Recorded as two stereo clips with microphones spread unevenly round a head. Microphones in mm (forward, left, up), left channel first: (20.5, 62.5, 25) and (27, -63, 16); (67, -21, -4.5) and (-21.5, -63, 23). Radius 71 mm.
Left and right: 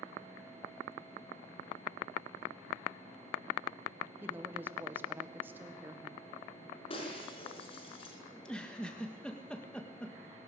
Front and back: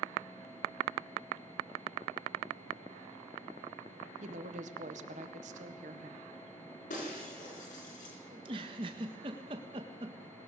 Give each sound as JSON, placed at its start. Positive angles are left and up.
{"t": 4.2, "sound": "a woman speaking", "azimuth_deg": -165, "distance_m": 1.7}
{"t": 6.9, "sound": "breaking glass", "azimuth_deg": 50, "distance_m": 5.0}
{"t": 8.3, "sound": "a giggle", "azimuth_deg": 175, "distance_m": 1.5}